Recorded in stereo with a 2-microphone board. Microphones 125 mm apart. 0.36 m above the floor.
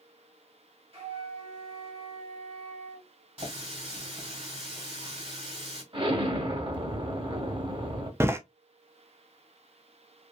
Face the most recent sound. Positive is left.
turn(degrees=-20)  # may be behind; listen again after turning